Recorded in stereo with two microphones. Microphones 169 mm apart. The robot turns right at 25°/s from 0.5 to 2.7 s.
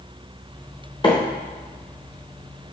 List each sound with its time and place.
1.0 s a microwave: 30° left (ahead or behind), 0.6 m; by 1.1 s 25° left (ahead or behind), 0.6 m